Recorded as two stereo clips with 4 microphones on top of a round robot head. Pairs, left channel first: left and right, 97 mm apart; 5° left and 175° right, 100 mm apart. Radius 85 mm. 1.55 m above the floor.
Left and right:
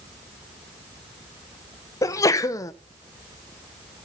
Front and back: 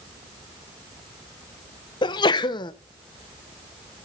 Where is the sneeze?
40° left, 0.7 m.